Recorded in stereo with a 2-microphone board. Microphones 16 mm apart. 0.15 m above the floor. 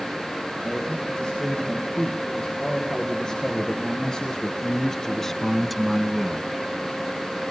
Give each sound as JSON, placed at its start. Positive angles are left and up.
{"t": 0.6, "sound": "a man speaking", "side_deg": 65, "distance_m": 7.0}